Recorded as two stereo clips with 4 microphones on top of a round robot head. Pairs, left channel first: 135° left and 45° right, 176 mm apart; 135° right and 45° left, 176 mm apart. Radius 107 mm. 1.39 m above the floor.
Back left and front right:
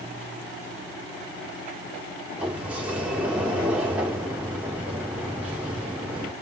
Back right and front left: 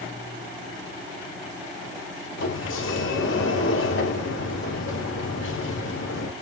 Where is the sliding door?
130° right, 1.6 m.